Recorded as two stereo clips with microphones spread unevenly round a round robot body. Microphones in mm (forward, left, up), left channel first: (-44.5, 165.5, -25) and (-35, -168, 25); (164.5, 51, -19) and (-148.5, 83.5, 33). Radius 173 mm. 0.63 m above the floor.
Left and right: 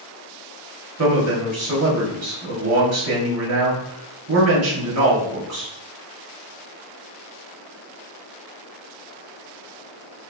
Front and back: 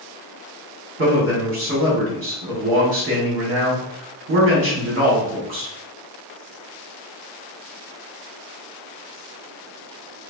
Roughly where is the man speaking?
Behind right.